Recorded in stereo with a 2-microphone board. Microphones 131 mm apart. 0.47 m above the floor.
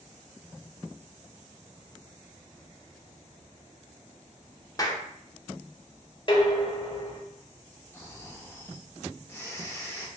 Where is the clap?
30° left (ahead or behind), 0.5 m.